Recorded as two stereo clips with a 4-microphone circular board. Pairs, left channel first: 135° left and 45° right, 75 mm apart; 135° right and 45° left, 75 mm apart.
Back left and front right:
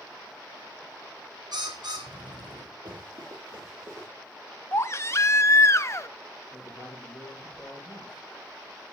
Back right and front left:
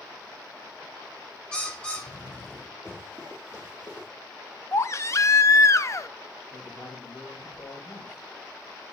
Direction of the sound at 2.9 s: 75° right.